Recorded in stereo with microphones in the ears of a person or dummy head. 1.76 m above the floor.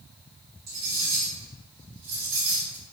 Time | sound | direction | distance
0.7 | cutlery clinking | 40° right (ahead or behind) | 1.3 m